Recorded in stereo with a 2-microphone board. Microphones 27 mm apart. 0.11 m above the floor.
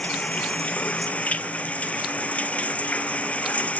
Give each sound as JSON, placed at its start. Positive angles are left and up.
{"t": 0.0, "sound": "running water", "side_deg": 50}